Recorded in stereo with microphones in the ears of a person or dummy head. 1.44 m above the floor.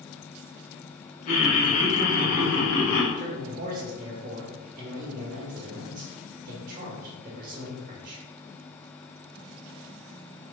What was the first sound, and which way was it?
Laughter, 45° left (ahead or behind).